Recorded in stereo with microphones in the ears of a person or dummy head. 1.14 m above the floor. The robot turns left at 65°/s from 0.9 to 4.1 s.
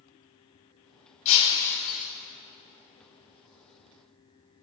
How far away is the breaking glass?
About 1.9 m.